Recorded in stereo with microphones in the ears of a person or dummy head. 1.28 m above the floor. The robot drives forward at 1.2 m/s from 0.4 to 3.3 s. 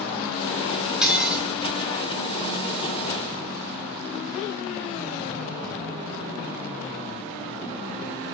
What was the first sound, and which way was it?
Dishes clattering, 5° right (ahead or behind).